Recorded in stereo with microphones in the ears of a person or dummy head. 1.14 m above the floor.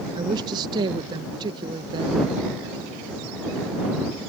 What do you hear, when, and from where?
0.1 s a woman speaking: 25° right (ahead or behind)